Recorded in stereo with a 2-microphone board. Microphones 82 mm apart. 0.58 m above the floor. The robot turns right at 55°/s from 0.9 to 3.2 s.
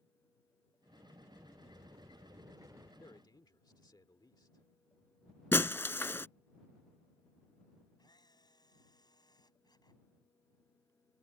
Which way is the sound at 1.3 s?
130° right.